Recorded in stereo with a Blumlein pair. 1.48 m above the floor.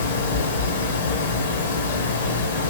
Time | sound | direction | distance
0.0 | a fan | 70° left | 1.1 m